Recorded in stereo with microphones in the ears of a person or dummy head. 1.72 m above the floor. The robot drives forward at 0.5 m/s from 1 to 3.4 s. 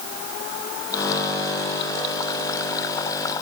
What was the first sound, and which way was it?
Only background noise.